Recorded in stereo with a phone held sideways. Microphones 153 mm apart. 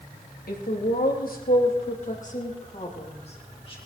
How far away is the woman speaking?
About 3 m.